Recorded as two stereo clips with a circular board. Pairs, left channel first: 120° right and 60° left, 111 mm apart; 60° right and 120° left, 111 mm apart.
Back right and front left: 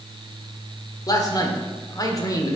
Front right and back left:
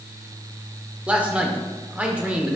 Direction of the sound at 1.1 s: 165° right.